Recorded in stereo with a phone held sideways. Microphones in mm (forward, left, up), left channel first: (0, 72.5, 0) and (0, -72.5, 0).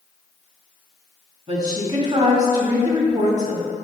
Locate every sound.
1.5 s a woman speaking: 45° right (ahead or behind), 1.9 m